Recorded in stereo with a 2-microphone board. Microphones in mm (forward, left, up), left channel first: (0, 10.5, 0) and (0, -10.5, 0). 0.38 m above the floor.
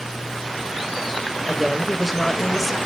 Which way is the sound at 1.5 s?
5° right (ahead or behind).